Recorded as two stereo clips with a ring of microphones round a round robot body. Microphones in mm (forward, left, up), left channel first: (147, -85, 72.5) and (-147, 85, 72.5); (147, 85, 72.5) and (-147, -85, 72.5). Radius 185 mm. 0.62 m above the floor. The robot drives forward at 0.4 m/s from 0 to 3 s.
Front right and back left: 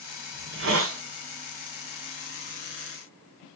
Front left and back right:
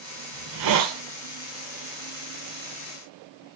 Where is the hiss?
160° right, 1.2 m; by 1.0 s 165° right, 1.4 m.